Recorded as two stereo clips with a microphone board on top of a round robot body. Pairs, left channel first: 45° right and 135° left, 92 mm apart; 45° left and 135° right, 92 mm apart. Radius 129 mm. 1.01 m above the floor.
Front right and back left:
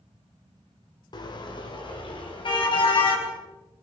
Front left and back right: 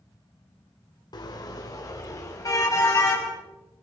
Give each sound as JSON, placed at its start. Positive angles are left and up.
{"t": 1.1, "sound": "a car horn", "azimuth_deg": 0, "distance_m": 2.5}